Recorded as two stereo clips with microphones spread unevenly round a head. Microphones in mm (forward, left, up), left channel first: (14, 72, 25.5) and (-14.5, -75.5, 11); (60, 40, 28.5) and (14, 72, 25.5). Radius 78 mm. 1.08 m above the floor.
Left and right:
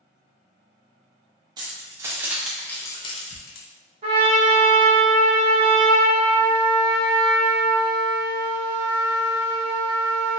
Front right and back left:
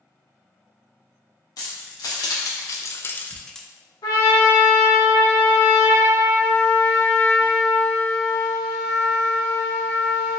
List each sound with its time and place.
1.6 s keys jangling: 35° right, 1.0 m; by 3.7 s 50° left, 0.6 m
4.0 s a trumpet: 50° right, 1.2 m